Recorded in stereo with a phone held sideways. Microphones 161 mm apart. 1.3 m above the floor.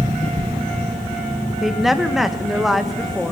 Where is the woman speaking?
Centre (ahead or behind), 1.3 m.